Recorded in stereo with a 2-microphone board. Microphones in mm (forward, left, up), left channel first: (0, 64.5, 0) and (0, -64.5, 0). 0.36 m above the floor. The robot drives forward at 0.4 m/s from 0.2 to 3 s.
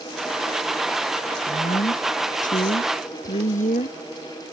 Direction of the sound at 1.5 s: 85° left.